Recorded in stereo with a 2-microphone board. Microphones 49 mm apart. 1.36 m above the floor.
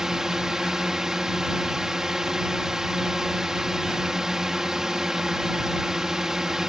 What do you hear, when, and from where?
0.0 s a drone: 10° right (ahead or behind)